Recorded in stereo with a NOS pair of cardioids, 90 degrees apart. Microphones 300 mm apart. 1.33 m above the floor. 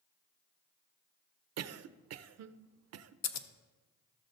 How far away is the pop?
I don't hear a pop.